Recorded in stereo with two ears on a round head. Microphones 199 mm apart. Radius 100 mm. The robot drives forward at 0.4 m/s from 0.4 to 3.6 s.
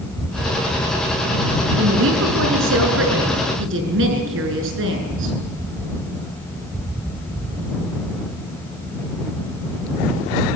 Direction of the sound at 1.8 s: 70° right (ahead or behind).